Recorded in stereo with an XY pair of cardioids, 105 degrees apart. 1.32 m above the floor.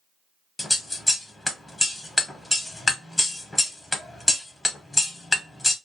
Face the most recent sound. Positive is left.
turn(degrees=15)